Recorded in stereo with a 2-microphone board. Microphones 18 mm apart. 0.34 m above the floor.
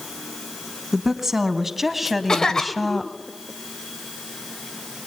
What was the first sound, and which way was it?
A woman speaking, 20° right (ahead or behind).